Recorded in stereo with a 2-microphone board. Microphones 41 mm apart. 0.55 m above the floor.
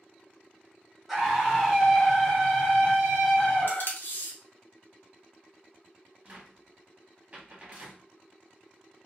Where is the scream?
5° right (ahead or behind), 1.4 m; by 4.0 s 20° left (ahead or behind), 1.5 m.